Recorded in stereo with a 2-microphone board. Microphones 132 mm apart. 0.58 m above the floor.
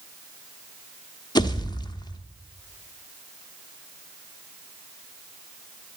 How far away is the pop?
About 0.9 m.